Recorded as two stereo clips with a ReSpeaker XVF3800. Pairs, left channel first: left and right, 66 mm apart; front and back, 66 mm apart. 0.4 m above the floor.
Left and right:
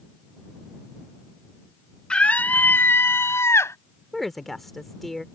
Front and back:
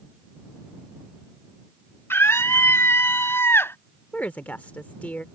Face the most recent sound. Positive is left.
turn(degrees=5)